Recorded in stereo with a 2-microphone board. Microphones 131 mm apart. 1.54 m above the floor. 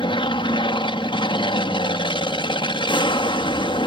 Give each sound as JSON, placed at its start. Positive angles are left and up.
{"t": 0.0, "sound": "an aircraft", "side_deg": 40}